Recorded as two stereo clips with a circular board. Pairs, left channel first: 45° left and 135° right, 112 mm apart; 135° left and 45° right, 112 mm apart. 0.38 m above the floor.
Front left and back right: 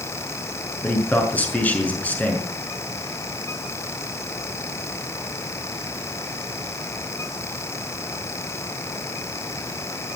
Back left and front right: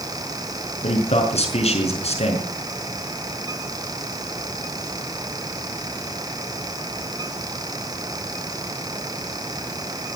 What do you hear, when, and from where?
0.8 s a man speaking: 120° left, 5.5 m